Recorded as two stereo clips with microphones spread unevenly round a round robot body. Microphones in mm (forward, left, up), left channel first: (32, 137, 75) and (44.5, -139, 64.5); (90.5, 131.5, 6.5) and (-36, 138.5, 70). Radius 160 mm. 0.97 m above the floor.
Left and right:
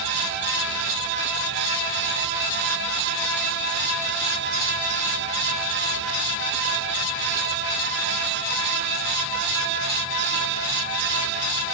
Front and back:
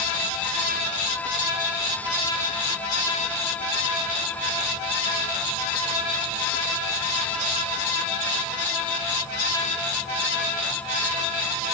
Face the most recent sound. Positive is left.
No sound to turn to.